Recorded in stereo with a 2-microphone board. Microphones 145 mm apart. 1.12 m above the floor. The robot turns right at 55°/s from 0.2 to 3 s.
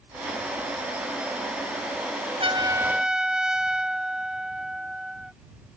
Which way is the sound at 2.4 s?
35° right.